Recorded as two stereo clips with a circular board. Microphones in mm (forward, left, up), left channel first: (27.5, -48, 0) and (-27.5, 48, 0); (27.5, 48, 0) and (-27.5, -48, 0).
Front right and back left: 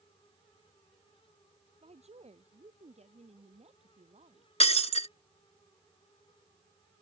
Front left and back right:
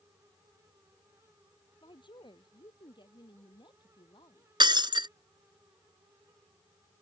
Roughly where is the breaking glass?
Right.